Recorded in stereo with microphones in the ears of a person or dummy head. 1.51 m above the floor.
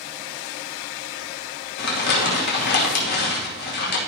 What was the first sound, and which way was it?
Crumpling, 55° left (ahead or behind).